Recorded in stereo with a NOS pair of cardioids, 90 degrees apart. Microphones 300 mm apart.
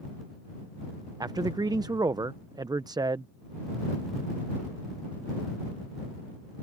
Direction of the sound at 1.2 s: 15° right.